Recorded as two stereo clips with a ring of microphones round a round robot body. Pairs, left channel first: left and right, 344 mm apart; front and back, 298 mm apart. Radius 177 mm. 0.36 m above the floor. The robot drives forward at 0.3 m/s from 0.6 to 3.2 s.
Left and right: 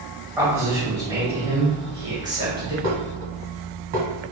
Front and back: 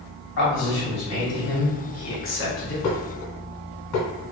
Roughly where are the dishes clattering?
Ahead right.